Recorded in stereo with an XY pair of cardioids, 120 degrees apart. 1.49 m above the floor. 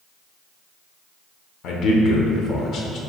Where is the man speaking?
65° left, 0.9 m.